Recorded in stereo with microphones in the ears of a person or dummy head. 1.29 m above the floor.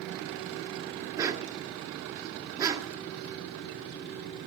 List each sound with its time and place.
1.2 s a dog barking: 25° right (ahead or behind), 1.2 m